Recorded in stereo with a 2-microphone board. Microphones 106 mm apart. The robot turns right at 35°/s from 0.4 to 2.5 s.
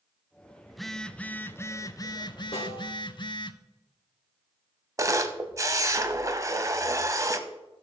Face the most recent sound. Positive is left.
turn(degrees=-30)  # may be behind; listen again after turning